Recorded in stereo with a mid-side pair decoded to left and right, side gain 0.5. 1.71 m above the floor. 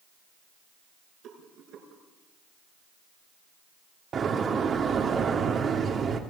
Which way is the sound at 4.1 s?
45° right.